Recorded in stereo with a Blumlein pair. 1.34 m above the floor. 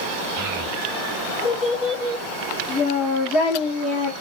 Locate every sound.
0.4 s a child speaking: 35° right, 1.4 m; by 4.1 s 30° left, 2 m